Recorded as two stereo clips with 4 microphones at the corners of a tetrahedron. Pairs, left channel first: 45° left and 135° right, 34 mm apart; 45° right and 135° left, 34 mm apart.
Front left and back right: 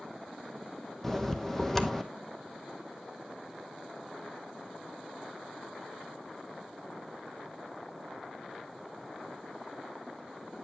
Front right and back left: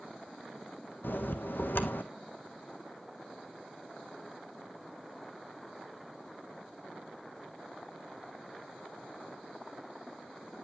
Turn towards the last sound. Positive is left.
turn(degrees=-30)